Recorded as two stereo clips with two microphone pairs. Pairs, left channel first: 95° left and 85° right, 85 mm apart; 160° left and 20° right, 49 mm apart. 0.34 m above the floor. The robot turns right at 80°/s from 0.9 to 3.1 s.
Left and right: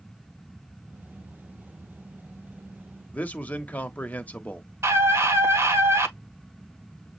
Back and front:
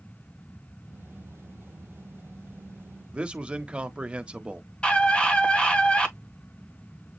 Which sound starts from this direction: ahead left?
A man speaking, at 3.1 s.